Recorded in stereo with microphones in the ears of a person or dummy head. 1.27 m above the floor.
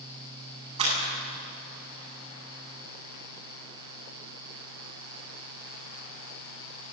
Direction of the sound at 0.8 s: 30° right (ahead or behind).